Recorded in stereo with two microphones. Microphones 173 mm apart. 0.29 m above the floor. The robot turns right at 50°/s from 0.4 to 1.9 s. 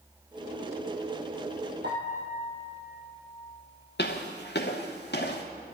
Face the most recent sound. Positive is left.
turn(degrees=75)  # may be behind; listen again after turning